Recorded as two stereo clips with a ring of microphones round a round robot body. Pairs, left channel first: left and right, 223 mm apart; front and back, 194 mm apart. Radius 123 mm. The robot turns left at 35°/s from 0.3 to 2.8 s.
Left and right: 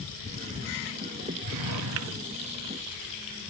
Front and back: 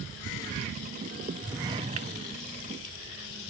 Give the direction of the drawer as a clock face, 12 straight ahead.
3 o'clock.